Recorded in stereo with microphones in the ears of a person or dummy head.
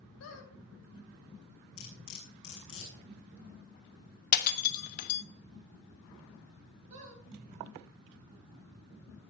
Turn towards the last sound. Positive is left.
turn(degrees=-35)  # may be behind; listen again after turning